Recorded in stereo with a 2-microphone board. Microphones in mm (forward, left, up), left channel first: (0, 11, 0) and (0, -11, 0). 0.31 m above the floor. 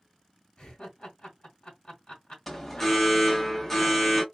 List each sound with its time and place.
0.6 s laughter: 40° left (ahead or behind), 1.6 m
2.5 s an alarm: 15° left (ahead or behind), 0.9 m